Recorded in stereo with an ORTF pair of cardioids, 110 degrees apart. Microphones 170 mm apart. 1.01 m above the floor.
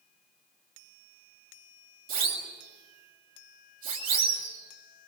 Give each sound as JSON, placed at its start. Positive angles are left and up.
{"t": 2.1, "sound": "a siren", "azimuth_deg": -60, "distance_m": 7.0}